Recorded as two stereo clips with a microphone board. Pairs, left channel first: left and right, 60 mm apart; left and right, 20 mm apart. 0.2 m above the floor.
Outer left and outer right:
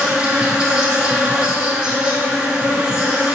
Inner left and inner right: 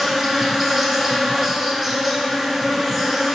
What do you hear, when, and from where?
0.0 s an insect: 15° right (ahead or behind), 0.9 m